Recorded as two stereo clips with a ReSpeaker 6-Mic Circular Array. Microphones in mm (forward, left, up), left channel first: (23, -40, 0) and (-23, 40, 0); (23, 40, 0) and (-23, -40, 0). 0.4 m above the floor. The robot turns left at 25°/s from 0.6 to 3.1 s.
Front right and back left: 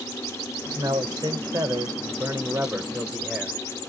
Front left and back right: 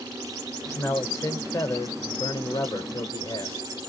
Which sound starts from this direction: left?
A man speaking, at 0.7 s.